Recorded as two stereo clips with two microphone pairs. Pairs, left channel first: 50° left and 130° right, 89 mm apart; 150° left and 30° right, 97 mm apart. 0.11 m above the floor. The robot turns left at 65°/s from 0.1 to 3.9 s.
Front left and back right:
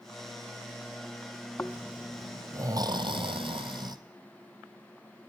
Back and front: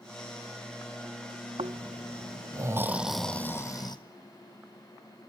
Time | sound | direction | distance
1.6 | snoring | 15° right | 1.0 m